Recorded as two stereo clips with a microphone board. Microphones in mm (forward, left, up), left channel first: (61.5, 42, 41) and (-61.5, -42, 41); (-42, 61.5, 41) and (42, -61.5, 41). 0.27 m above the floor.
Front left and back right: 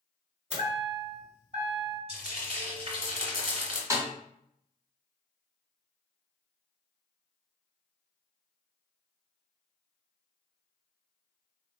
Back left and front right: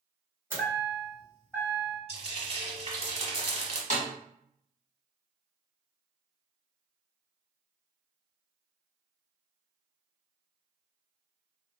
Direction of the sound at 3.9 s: 150° left.